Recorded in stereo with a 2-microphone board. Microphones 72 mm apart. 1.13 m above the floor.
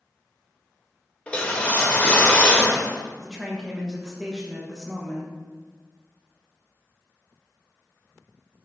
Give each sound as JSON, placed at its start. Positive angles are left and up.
{"t": 1.3, "sound": "a whoosh", "side_deg": 20, "distance_m": 0.8}
{"t": 3.2, "sound": "a woman speaking", "side_deg": -10, "distance_m": 1.1}